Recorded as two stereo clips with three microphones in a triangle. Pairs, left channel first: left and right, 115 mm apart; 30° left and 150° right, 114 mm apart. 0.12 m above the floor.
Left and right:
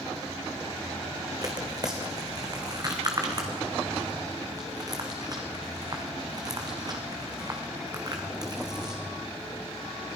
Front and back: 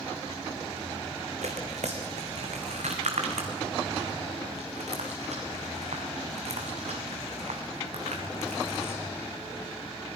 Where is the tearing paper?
145° right, 3 m.